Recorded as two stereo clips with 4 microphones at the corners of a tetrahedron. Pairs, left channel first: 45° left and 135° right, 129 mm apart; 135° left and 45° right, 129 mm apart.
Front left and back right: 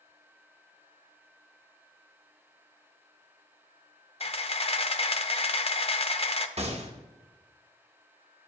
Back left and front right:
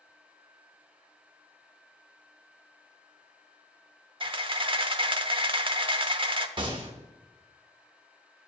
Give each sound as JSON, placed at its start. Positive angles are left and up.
{"t": 4.2, "sound": "a camera shutter", "azimuth_deg": 0, "distance_m": 0.5}
{"t": 6.6, "sound": "a gunshot", "azimuth_deg": -95, "distance_m": 1.0}